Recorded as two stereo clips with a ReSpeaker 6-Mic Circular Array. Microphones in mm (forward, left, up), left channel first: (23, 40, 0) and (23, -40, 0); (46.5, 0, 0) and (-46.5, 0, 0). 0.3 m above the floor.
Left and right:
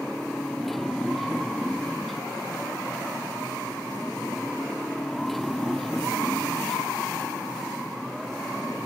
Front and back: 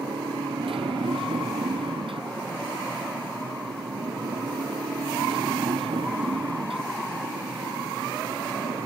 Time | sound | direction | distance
0.0 | a motorcycle | 175° left | ?